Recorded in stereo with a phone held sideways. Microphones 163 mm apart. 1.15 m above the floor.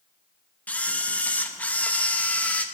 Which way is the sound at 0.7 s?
10° left (ahead or behind).